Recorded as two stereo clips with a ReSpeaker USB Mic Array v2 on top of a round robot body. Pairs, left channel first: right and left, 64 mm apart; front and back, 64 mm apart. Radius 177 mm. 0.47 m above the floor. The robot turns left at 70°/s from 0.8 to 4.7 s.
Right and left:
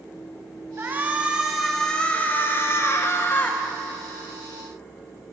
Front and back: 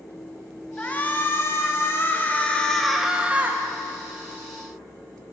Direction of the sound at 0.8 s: 60° left.